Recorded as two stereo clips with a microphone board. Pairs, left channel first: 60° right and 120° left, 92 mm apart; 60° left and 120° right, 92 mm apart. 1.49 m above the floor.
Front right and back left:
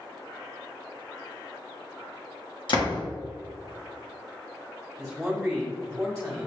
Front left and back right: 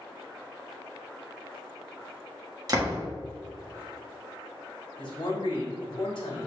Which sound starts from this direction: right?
A door slam, at 2.7 s.